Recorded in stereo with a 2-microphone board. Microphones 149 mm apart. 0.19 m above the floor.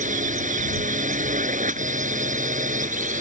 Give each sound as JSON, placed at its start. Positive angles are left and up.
{"t": 0.0, "sound": "a drone", "side_deg": -60}